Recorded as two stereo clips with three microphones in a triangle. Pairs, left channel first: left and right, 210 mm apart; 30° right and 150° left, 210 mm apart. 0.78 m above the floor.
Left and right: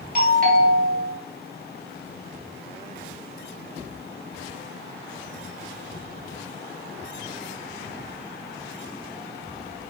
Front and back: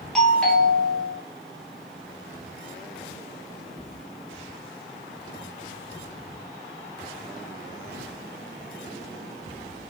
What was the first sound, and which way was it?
A doorbell, 115° right.